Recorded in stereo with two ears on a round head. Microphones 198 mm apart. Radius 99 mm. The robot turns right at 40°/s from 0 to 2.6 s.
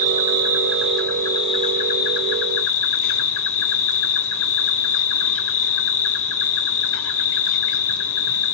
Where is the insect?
35° right, 1.4 m; by 8.6 s 70° left, 1.4 m.